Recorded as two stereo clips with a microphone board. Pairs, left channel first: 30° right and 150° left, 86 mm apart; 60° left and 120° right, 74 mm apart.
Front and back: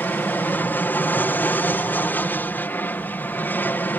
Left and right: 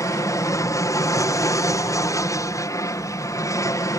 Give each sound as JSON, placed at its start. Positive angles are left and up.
{"t": 0.0, "sound": "an aircraft", "azimuth_deg": 35}